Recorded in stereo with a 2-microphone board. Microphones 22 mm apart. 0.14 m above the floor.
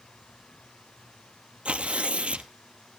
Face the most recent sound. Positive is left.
turn(degrees=-60)  # may be behind; listen again after turning